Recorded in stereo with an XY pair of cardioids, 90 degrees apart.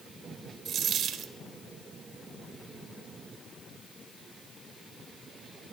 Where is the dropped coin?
65° right, 2 m.